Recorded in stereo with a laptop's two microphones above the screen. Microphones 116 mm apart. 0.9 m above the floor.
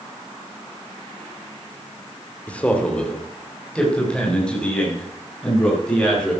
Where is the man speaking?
10° left (ahead or behind), 1.9 m; by 6.3 s 5° left (ahead or behind), 7.5 m.